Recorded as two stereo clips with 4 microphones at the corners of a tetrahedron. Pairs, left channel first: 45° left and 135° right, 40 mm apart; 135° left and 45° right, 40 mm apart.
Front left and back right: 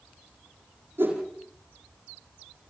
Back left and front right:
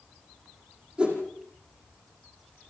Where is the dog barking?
I don't hear a dog barking.